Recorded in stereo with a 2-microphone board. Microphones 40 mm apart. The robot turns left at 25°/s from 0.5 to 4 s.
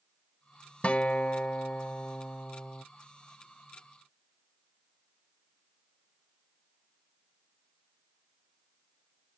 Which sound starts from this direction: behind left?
A guitar, at 0.8 s.